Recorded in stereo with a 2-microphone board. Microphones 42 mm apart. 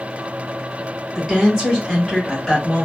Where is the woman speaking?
5° right (ahead or behind), 1.6 m; by 2.9 s 20° left (ahead or behind), 1.6 m.